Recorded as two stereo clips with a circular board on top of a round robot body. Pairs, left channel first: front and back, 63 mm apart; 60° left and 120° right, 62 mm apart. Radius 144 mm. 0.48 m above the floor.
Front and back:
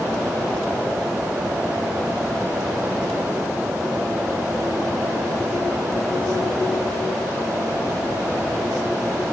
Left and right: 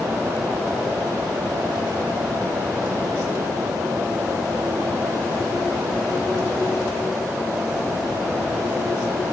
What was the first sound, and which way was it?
Only background noise.